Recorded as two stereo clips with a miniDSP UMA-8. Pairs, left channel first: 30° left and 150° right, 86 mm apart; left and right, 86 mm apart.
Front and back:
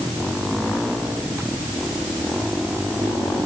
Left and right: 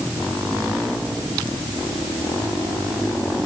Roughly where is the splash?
No splash in this recording.